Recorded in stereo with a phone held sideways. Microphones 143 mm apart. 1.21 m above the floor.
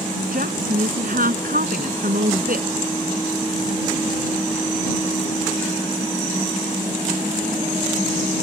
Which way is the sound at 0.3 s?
80° right.